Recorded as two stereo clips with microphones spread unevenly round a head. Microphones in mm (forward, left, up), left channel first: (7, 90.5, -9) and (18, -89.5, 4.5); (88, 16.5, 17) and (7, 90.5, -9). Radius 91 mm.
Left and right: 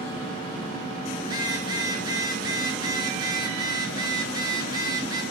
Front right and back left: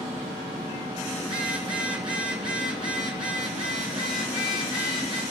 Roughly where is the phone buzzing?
Behind right.